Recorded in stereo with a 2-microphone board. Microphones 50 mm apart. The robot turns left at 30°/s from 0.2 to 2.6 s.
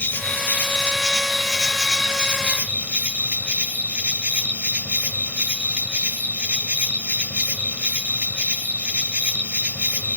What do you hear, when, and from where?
0.0 s an insect: 40° left, 1.5 m; by 10.2 s 30° right, 1.5 m